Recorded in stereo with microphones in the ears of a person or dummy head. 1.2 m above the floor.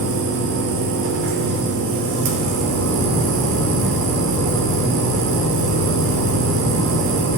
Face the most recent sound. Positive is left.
turn(degrees=-60)  # may be behind; listen again after turning